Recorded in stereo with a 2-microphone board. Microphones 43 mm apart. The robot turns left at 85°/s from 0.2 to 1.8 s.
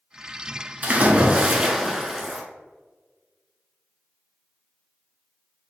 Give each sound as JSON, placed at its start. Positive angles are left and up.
{"t": 0.8, "sound": "a splash", "azimuth_deg": -90, "distance_m": 0.9}